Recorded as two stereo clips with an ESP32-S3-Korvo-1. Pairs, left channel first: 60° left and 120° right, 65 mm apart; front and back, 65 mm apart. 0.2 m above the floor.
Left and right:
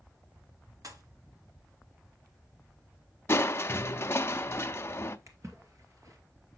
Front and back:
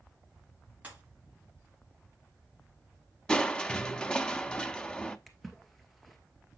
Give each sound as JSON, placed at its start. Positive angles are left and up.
{"t": 0.8, "sound": "a pop", "azimuth_deg": -115, "distance_m": 1.9}
{"t": 3.3, "sound": "crushing", "azimuth_deg": 70, "distance_m": 0.6}
{"t": 5.3, "sound": "a splash", "azimuth_deg": -90, "distance_m": 1.8}